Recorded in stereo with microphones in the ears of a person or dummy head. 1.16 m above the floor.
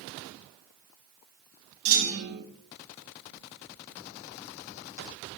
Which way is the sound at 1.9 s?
45° right (ahead or behind).